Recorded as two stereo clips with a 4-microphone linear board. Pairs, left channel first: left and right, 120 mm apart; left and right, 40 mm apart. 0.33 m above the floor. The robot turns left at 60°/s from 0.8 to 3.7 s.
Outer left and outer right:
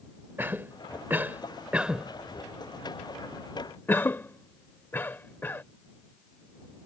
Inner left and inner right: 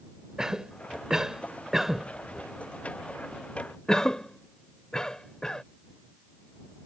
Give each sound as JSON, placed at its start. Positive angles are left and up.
{"t": 0.4, "sound": "a cough", "side_deg": -20}